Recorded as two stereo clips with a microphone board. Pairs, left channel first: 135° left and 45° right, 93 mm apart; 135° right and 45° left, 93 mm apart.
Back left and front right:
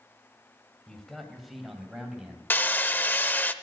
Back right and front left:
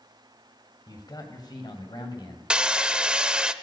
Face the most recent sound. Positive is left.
turn(degrees=110)